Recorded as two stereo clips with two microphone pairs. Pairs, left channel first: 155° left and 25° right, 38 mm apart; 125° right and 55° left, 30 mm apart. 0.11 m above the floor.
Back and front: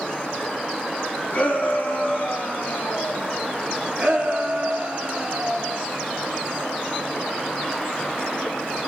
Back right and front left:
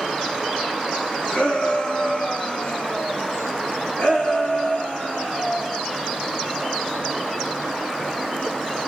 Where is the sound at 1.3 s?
160° right, 4 m; by 3.3 s 170° right, 5 m.